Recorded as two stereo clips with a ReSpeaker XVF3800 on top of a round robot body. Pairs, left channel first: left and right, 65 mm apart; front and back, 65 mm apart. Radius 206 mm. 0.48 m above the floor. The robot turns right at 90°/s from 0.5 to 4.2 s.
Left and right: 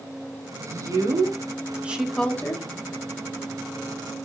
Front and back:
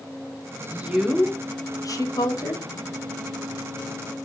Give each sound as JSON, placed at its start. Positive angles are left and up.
{"t": 0.6, "sound": "a woman speaking", "azimuth_deg": -135, "distance_m": 1.1}